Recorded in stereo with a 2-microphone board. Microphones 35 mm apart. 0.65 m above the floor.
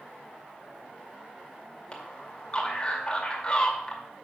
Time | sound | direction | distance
1.9 | a man speaking | 25° left (ahead or behind) | 2.5 m